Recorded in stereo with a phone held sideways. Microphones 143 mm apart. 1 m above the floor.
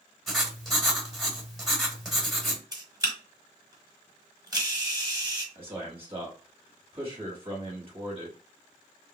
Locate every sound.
0.3 s writing: centre (ahead or behind), 1.5 m
2.7 s a camera shutter: 30° right (ahead or behind), 1.6 m
5.5 s a man speaking: 40° right (ahead or behind), 1.6 m